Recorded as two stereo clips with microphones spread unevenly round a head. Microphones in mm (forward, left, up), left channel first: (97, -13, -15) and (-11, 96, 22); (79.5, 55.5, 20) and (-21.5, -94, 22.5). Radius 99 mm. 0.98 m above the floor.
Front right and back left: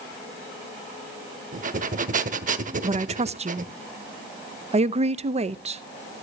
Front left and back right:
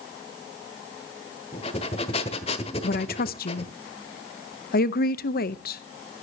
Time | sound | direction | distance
1.5 | breathing | 120° left | 1.2 m
2.8 | a woman speaking | 85° left | 0.8 m